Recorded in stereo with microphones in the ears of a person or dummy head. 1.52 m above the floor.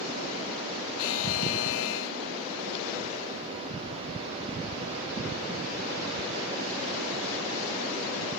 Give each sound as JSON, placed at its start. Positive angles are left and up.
{"t": 1.0, "sound": "a buzzer", "side_deg": 70, "distance_m": 0.5}